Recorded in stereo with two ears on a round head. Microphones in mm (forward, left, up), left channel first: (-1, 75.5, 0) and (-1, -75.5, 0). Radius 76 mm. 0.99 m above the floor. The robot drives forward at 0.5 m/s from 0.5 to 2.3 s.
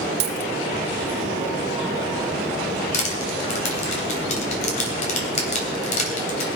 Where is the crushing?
45° left (ahead or behind), 3 m.